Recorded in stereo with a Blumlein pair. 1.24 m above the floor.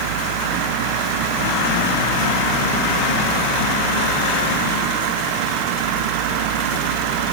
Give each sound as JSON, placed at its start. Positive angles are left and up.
{"t": 0.0, "sound": "a fan", "azimuth_deg": -50}